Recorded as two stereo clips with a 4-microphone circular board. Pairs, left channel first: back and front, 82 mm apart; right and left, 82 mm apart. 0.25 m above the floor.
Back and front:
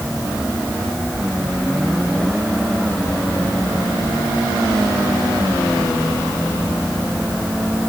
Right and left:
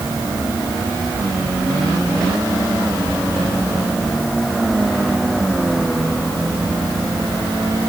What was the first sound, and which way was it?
Only background noise.